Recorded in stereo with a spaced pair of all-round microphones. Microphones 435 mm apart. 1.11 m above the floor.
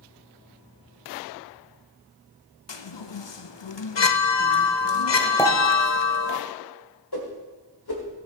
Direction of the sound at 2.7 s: 75° left (ahead or behind).